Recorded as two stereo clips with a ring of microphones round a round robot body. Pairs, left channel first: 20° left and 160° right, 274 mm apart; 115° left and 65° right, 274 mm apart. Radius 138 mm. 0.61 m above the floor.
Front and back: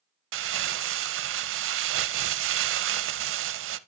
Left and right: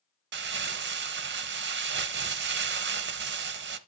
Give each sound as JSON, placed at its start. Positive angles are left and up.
{"t": 0.3, "sound": "crumpling", "azimuth_deg": -115, "distance_m": 0.6}